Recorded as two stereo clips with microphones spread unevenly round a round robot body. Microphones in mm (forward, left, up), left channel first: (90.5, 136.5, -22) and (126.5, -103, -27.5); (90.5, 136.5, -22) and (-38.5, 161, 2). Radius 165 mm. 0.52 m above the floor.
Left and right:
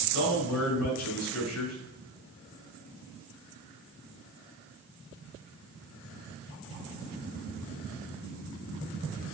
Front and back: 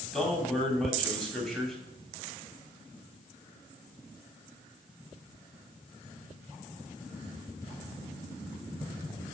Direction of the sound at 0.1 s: 75° left.